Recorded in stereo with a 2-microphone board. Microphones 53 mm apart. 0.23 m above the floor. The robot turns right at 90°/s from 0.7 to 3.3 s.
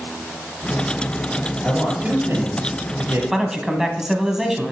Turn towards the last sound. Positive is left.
turn(degrees=-10)  # may be behind; listen again after turning